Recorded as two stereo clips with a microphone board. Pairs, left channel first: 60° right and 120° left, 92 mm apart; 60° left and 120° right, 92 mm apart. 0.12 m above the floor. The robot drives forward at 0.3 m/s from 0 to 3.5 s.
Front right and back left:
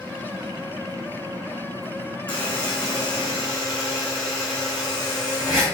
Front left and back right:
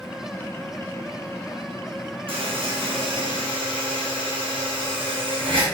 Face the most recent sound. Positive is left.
turn(degrees=-145)